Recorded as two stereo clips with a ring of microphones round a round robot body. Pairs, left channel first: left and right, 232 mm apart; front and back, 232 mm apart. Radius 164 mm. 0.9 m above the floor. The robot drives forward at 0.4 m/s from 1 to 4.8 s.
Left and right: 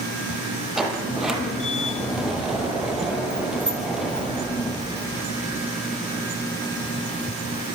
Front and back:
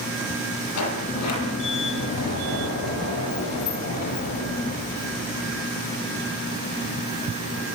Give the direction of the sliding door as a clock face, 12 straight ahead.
12 o'clock.